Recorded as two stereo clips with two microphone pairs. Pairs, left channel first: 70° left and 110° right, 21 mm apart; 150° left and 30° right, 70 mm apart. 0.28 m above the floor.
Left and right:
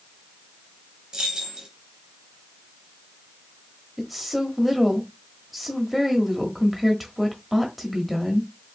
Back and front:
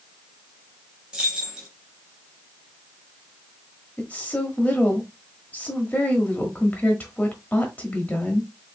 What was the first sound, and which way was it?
Keys jangling, 100° right.